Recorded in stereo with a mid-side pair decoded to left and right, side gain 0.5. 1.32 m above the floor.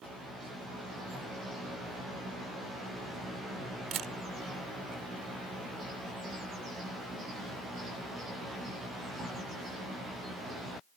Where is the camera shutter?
55° right.